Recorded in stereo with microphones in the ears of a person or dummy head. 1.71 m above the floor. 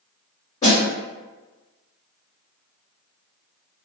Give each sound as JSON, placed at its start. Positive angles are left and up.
{"t": 0.6, "sound": "a snare drum", "side_deg": 15, "distance_m": 1.7}